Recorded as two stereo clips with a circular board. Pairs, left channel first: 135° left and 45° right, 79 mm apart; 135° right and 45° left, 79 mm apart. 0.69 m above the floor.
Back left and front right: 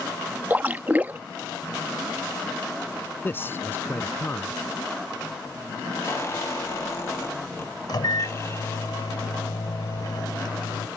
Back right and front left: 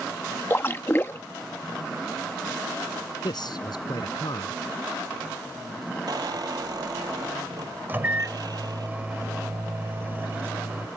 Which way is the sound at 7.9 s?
110° left.